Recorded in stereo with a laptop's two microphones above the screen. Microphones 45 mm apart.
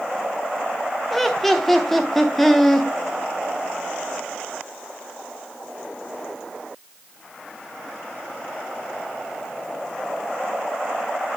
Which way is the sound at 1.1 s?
5° left (ahead or behind).